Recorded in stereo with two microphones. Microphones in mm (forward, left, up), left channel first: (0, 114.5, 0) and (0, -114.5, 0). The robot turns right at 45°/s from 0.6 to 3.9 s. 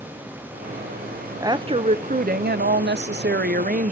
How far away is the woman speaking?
About 0.5 m.